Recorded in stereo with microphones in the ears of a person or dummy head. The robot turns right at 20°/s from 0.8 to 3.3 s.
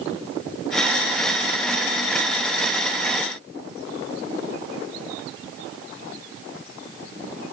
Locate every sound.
Only background noise.